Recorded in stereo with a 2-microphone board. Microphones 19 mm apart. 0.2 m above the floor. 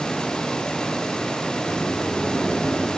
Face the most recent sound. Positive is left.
turn(degrees=65)  # may be behind; listen again after turning